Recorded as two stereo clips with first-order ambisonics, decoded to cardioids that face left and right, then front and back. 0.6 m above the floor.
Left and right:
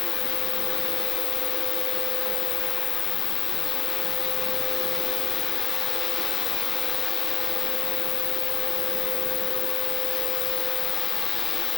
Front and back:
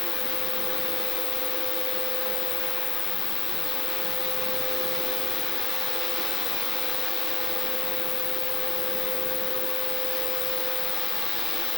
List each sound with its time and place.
0.0 s an insect: 55° left